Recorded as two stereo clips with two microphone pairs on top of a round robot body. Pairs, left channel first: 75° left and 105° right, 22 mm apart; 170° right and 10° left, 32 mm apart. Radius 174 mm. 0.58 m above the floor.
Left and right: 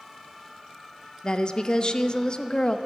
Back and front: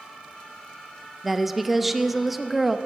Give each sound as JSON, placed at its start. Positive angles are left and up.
{"t": 1.2, "sound": "a woman speaking", "azimuth_deg": 85, "distance_m": 1.0}